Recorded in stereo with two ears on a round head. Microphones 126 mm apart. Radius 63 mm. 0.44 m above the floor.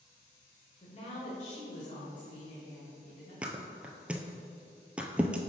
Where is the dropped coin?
I don't hear a dropped coin.